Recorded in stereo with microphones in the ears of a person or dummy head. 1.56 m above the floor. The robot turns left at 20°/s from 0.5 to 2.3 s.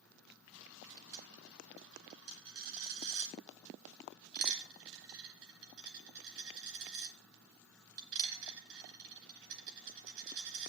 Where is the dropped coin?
55° right (ahead or behind), 3 m; by 10.7 s 65° right (ahead or behind), 3 m.